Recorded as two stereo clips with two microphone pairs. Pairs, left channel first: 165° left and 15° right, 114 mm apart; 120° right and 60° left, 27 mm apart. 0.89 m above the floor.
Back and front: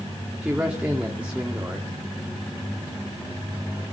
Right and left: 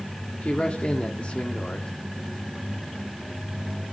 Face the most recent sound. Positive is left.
turn(degrees=-95)